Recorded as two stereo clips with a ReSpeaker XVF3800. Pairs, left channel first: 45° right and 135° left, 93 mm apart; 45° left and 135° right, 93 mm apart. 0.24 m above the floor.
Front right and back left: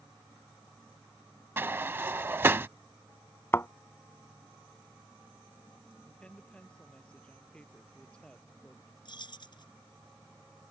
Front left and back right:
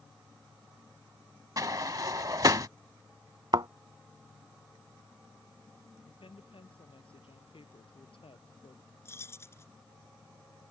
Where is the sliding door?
170° right.